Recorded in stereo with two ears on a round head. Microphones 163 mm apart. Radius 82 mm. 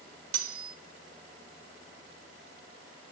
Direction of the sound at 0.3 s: 85° right.